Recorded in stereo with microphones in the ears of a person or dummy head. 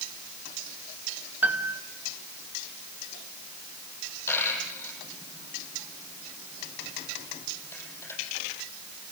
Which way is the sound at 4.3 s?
15° left (ahead or behind).